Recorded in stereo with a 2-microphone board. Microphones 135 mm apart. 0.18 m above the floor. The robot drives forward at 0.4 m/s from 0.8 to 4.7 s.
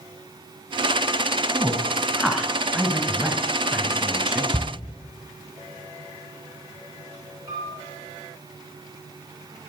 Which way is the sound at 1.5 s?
5° right (ahead or behind).